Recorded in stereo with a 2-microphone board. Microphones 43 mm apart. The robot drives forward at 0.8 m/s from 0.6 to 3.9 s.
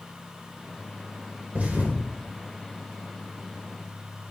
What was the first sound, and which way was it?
A thud, 35° right (ahead or behind).